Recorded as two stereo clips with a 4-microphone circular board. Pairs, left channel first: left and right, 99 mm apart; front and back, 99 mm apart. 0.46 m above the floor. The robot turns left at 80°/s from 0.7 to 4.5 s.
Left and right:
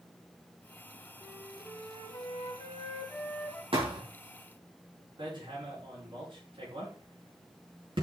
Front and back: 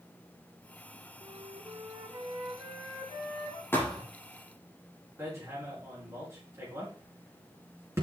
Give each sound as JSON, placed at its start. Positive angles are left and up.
{"t": 1.2, "sound": "a flute", "azimuth_deg": -165, "distance_m": 2.5}
{"t": 3.7, "sound": "a thud", "azimuth_deg": -65, "distance_m": 4.5}
{"t": 5.2, "sound": "hammering", "azimuth_deg": -120, "distance_m": 6.0}